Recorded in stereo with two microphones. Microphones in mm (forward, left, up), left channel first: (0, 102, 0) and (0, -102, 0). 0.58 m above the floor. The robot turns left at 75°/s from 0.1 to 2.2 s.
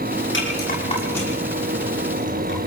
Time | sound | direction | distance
0.3 | a rattle | 75° left (ahead or behind) | 10 m